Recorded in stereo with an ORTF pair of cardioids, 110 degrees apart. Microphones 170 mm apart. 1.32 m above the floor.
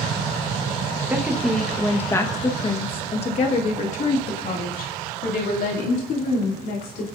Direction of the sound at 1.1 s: 10° right.